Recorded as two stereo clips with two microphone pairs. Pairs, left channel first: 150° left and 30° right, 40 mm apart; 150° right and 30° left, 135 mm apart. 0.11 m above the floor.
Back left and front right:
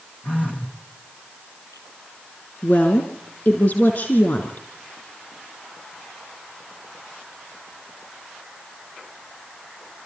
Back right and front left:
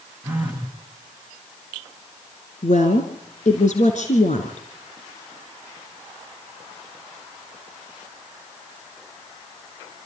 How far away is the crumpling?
No crumpling in this recording.